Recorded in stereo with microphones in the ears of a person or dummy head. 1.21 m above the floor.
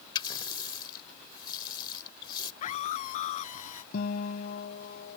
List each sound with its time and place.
0.1 s a running tap: 30° left (ahead or behind)
2.6 s a scream: 40° left (ahead or behind)
3.9 s a guitar: 60° left (ahead or behind)